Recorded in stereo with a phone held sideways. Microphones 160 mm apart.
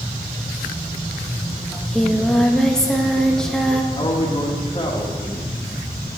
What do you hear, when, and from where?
1.7 s singing: 5° left (ahead or behind), 0.8 m
3.9 s a man speaking: 30° left (ahead or behind), 1.4 m